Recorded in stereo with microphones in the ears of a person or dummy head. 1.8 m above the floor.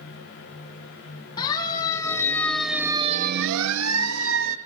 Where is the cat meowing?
No cat meowing in this recording.